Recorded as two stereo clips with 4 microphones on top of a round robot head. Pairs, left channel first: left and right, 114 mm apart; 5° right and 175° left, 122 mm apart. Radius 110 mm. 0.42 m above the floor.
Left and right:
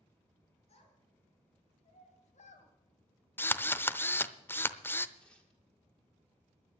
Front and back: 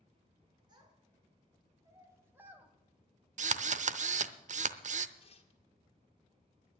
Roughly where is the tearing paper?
Ahead.